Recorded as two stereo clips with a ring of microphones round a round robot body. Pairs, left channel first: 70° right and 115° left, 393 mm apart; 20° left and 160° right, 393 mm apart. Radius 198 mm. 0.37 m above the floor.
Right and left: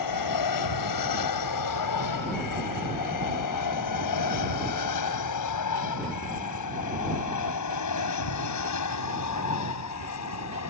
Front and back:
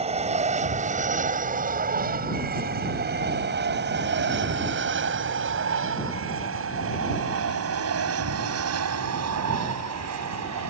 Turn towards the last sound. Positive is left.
turn(degrees=-115)